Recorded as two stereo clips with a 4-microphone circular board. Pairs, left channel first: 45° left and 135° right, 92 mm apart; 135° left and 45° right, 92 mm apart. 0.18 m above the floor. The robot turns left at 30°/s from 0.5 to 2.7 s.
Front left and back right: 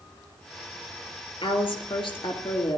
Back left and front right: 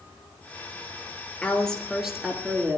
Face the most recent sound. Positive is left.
turn(degrees=20)